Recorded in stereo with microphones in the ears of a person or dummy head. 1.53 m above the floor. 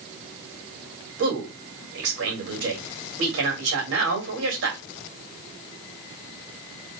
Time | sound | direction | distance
1.2 | a man speaking | 75° right (ahead or behind) | 2.5 m